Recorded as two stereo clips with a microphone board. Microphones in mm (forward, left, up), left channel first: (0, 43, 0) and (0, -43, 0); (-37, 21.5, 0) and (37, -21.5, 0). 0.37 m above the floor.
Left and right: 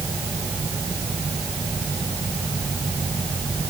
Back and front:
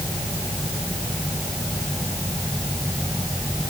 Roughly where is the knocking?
No knocking in this recording.